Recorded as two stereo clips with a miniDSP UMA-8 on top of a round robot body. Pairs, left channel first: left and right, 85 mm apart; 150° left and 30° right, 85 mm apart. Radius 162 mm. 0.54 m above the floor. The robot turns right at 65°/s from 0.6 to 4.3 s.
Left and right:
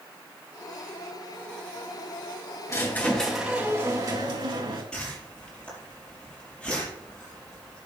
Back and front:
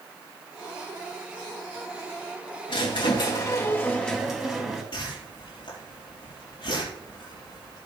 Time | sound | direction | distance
2.7 | a squeak | 140° left | 3.5 m
4.9 | a whoosh | 170° left | 6 m